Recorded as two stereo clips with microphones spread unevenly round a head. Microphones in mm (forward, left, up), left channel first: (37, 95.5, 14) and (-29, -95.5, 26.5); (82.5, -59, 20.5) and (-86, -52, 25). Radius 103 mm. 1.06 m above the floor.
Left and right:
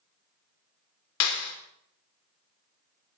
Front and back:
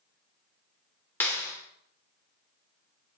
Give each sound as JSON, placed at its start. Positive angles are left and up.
{"t": 1.2, "sound": "a clap", "azimuth_deg": 80, "distance_m": 2.5}